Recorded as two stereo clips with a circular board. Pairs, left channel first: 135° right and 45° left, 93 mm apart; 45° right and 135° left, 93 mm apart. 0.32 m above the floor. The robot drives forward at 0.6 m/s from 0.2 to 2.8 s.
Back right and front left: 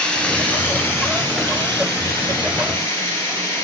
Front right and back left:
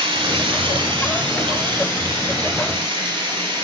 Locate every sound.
0.0 s running water: 145° left, 0.8 m; by 3.6 s 170° left, 2.5 m